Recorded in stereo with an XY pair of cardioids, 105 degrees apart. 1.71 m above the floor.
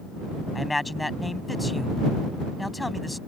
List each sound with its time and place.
0.6 s a man speaking: 10° left